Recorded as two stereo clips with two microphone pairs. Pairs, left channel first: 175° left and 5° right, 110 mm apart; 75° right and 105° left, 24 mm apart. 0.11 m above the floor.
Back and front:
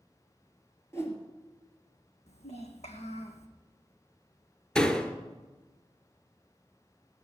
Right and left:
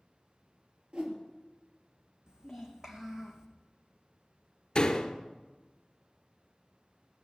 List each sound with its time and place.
0.9 s a whoosh: 115° left, 2.5 m
2.3 s a child speaking: 165° left, 3 m
4.8 s a door slam: 105° right, 1.2 m